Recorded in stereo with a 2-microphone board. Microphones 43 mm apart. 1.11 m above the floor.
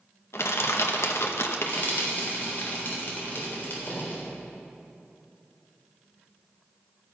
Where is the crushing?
70° left (ahead or behind), 0.9 m.